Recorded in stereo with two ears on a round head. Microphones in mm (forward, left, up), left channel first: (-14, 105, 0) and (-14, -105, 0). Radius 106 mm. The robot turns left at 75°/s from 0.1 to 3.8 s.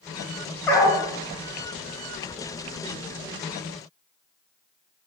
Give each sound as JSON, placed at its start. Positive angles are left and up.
{"t": 0.7, "sound": "a dog barking", "side_deg": 10, "distance_m": 1.2}